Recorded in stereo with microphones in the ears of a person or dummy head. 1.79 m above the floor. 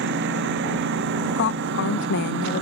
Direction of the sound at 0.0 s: 65° right (ahead or behind).